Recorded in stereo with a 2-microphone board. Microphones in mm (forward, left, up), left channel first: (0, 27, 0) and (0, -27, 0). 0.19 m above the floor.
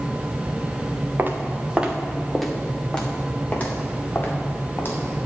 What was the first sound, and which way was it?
Footsteps, 35° right (ahead or behind).